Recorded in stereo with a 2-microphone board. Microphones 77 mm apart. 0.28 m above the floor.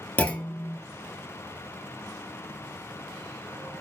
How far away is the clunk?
About 0.6 m.